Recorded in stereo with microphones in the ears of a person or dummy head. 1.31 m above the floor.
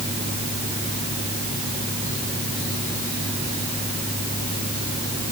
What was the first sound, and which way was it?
Only background noise.